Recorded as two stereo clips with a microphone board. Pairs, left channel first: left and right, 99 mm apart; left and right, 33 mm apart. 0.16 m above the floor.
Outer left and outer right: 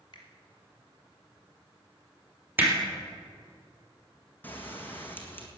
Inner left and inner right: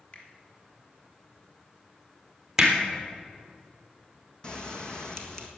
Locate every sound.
0.1 s a finger snap: 50° left (ahead or behind), 3 m
2.6 s hammering: 20° right (ahead or behind), 3 m
4.4 s a bell: 20° left (ahead or behind), 1.6 m